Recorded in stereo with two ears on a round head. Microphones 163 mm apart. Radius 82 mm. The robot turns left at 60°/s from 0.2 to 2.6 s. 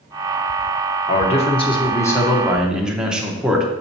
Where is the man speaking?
85° left, 0.9 m; by 3.7 s 5° right, 0.9 m.